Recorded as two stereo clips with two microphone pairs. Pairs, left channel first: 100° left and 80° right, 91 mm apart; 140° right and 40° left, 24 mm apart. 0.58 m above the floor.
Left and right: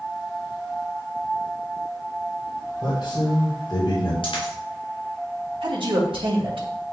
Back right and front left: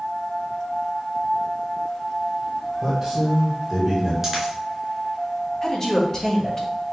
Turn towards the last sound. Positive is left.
turn(degrees=-75)